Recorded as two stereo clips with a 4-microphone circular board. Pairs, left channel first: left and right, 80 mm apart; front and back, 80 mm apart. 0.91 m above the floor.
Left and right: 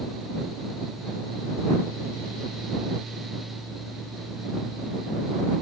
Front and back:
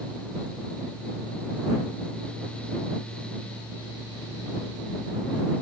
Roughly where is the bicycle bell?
I don't hear a bicycle bell.